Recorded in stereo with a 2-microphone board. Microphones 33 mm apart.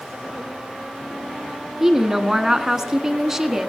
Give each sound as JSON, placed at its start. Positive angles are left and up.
{"t": 1.8, "sound": "a woman speaking", "side_deg": -15, "distance_m": 1.0}